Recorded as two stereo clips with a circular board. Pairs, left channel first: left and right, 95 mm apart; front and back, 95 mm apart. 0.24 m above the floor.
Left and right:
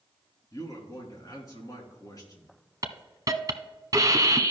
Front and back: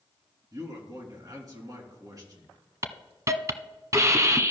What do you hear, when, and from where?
0.5 s a man speaking: 135° left, 2.5 m
2.8 s a hiss: 135° right, 1.0 m